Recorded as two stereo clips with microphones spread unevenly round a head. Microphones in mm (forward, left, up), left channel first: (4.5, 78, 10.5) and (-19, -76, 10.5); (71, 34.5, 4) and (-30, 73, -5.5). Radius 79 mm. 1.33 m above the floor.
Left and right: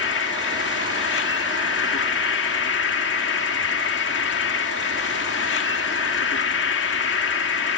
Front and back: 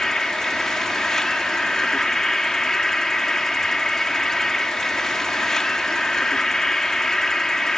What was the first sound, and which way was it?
An insect, 65° left.